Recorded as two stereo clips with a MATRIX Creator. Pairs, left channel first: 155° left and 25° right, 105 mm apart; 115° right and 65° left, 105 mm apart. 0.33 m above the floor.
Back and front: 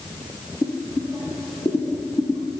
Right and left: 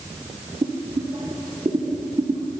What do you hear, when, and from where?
0.6 s boiling: 110° left, 1.7 m